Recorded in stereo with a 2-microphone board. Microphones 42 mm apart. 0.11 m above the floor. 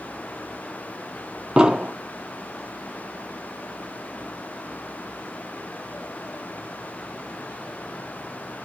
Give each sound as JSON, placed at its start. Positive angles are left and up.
{"t": 1.6, "sound": "an explosion", "side_deg": -20, "distance_m": 0.6}